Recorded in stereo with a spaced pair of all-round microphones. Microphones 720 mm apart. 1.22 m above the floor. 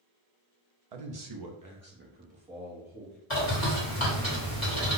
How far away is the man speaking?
About 0.8 m.